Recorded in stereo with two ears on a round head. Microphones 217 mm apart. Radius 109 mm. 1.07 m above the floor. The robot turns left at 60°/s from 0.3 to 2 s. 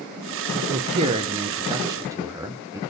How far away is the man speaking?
About 0.7 m.